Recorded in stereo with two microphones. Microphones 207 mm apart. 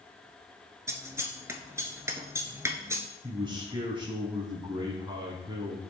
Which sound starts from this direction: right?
A man speaking, at 3.2 s.